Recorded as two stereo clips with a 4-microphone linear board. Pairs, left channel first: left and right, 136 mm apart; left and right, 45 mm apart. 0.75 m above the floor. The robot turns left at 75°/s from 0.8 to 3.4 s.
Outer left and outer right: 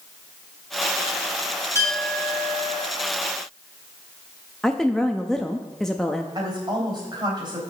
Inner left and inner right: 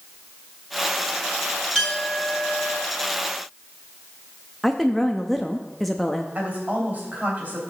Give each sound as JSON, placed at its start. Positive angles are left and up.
{"t": 1.8, "sound": "a clink", "azimuth_deg": 20, "distance_m": 4.5}
{"t": 4.6, "sound": "a woman speaking", "side_deg": 5, "distance_m": 0.6}
{"t": 6.3, "sound": "a woman speaking", "side_deg": -35, "distance_m": 3.0}